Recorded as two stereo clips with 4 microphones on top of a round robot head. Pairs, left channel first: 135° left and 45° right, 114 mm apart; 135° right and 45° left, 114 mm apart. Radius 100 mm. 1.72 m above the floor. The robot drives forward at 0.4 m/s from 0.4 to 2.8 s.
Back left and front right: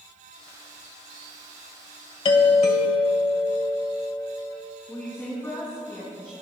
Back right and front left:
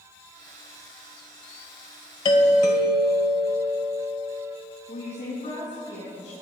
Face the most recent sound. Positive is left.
turn(degrees=-155)